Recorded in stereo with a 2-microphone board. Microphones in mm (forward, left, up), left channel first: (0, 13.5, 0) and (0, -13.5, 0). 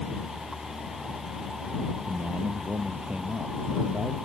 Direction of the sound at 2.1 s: 70° right (ahead or behind).